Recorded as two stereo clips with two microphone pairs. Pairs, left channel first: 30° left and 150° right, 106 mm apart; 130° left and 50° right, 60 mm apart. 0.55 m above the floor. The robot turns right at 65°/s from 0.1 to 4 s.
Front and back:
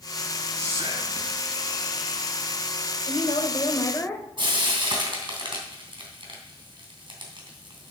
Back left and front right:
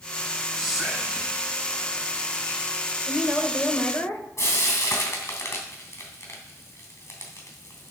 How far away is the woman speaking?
About 1.8 m.